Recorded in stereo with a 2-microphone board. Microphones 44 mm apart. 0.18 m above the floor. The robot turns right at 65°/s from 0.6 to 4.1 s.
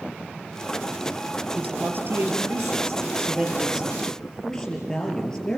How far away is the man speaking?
About 4 m.